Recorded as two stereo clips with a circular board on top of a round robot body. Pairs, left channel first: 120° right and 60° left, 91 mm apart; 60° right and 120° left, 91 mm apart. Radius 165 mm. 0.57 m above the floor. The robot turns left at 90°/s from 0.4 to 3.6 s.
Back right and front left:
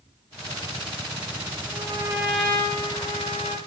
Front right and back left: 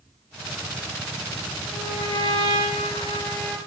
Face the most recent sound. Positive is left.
turn(degrees=-150)